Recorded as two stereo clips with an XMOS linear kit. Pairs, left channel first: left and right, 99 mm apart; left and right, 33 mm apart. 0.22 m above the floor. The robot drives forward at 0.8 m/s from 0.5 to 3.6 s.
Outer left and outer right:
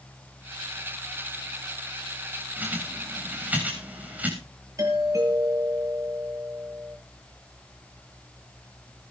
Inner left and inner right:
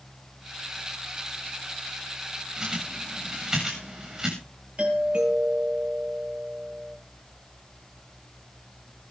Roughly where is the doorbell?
Right.